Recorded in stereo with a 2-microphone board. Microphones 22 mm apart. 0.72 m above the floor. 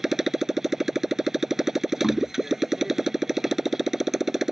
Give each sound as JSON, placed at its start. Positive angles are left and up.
{"t": 0.0, "sound": "a motorcycle", "side_deg": -20}
{"t": 2.0, "sound": "knocking", "side_deg": 20}